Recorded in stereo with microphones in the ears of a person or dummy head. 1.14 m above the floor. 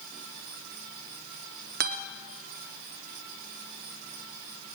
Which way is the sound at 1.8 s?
50° right (ahead or behind).